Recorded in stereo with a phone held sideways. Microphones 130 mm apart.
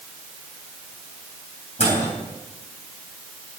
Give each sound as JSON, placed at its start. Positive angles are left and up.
{"t": 1.8, "sound": "a microwave", "side_deg": 60, "distance_m": 4.0}